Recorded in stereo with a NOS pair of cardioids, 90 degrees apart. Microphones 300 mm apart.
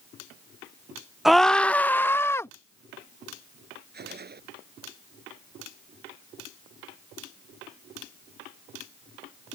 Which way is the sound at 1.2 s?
Straight ahead.